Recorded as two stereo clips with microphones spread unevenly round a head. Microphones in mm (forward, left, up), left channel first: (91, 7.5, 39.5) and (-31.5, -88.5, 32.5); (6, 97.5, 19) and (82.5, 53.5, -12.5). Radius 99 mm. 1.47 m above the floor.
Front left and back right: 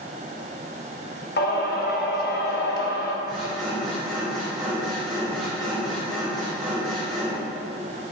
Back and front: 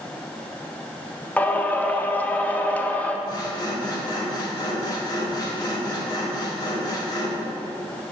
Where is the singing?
75° left, 0.9 m.